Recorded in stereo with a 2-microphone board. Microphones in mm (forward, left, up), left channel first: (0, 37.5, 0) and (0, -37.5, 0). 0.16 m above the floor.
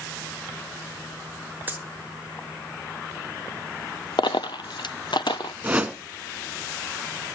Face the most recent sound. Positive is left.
turn(degrees=-15)  # may be behind; listen again after turning